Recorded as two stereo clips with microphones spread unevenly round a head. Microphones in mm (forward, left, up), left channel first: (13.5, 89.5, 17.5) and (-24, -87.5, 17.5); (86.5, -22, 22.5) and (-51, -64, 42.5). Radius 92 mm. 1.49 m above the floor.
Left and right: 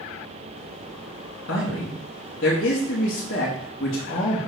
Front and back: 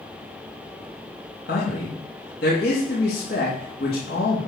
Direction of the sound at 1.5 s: 55° left.